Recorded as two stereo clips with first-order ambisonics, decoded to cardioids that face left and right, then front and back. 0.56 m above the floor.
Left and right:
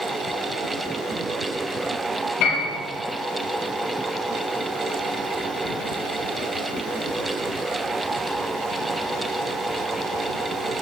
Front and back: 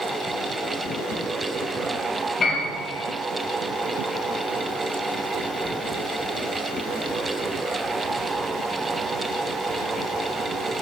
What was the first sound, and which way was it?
A piano, 70° left.